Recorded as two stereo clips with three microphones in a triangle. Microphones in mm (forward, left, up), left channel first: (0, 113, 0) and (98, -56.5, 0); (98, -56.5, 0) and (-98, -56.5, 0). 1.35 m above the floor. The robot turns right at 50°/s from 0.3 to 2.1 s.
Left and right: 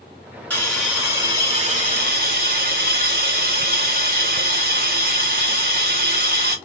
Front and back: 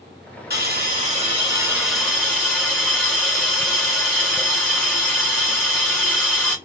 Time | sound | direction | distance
0.5 | a hiss | 160° right | 1.5 m